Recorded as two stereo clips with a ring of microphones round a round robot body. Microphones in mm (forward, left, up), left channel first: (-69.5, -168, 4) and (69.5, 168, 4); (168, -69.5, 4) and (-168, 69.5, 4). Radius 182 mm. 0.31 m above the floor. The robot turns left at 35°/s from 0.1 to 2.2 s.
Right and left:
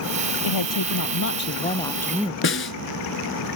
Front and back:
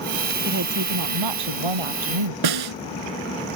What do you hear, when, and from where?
0.4 s a woman speaking: 140° right; by 2.3 s 155° left
2.4 s a snare drum: 175° right